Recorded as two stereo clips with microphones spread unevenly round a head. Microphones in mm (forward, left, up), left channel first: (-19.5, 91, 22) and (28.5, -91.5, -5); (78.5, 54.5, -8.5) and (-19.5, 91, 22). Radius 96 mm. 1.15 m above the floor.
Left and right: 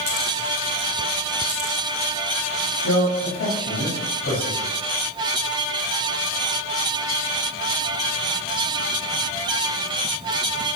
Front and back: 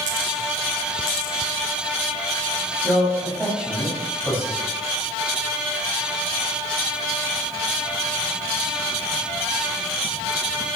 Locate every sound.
2.8 s a man speaking: 80° left, 7 m